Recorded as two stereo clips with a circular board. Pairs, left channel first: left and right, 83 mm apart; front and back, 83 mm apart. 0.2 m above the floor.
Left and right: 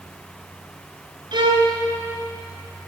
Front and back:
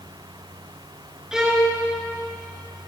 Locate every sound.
1.3 s a violin: 95° right, 1.4 m